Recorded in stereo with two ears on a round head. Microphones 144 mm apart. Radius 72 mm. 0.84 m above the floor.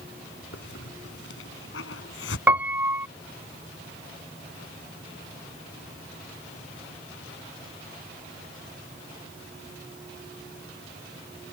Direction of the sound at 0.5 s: 85° left.